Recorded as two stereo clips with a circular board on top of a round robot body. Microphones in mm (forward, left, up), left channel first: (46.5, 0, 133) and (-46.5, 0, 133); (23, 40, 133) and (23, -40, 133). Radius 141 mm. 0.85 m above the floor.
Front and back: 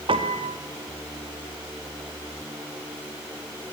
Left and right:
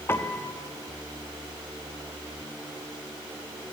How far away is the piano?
About 1.6 m.